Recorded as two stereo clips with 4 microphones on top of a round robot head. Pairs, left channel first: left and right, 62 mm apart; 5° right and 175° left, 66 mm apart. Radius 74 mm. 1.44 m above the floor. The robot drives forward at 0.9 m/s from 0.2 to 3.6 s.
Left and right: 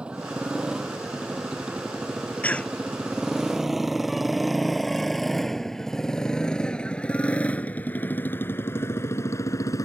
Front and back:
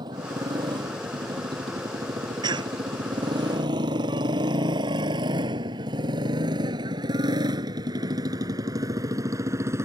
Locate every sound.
0.0 s a motorcycle: 165° right; by 9.9 s 125° left
2.4 s a cough: 160° left; by 2.8 s 165° left